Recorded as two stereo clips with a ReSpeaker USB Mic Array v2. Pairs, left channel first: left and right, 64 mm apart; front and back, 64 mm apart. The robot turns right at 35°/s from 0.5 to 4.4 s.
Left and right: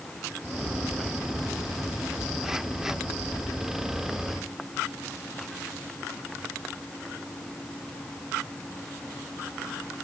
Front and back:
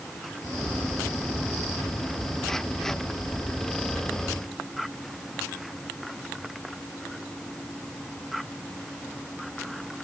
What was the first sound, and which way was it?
Only background noise.